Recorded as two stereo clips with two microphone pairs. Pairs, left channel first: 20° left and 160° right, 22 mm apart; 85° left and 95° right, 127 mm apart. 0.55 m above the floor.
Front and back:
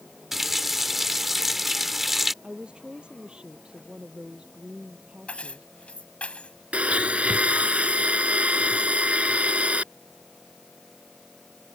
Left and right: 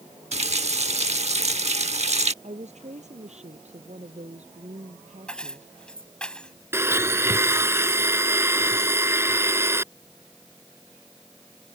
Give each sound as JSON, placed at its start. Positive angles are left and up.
{"t": 0.3, "sound": "a running tap", "azimuth_deg": -80}
{"t": 2.4, "sound": "a woman speaking", "azimuth_deg": -120}
{"t": 5.3, "sound": "keys jangling", "azimuth_deg": 5}
{"t": 6.7, "sound": "a blender", "azimuth_deg": -160}